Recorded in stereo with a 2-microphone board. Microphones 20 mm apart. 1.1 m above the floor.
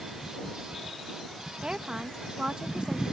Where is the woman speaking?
45° right (ahead or behind).